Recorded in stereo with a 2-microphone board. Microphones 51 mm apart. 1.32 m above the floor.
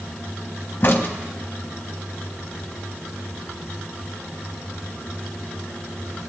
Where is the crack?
40° left (ahead or behind), 0.9 m.